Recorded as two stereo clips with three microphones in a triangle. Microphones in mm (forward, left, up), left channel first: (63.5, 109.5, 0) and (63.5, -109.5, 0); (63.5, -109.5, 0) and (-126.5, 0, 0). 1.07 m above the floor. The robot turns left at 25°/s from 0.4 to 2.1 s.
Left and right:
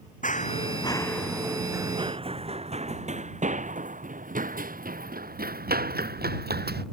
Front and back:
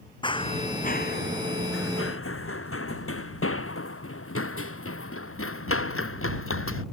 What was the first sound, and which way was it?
Running footsteps, 35° left.